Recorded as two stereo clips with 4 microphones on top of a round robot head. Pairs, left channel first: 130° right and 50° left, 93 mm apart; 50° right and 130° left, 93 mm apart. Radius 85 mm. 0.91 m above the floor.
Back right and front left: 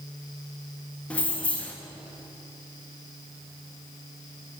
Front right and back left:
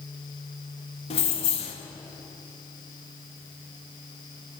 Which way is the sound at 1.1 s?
55° right.